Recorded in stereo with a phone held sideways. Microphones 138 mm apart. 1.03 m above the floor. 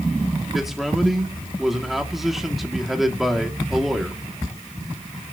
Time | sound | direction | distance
0.5 | a man speaking | centre (ahead or behind) | 2.0 m